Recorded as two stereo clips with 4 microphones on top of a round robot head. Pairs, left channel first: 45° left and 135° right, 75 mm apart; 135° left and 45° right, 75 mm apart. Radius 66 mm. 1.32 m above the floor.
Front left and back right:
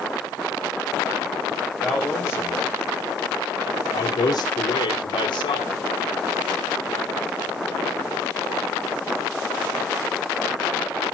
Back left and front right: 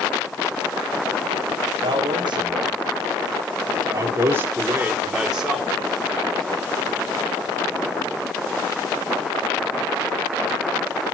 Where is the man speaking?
35° right, 1.8 m; by 5.8 s 45° left, 1.8 m.